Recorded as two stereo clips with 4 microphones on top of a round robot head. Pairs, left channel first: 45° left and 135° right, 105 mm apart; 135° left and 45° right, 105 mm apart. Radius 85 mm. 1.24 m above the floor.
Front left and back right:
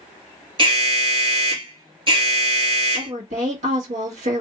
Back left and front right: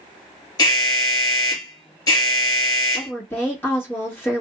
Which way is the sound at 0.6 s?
170° right.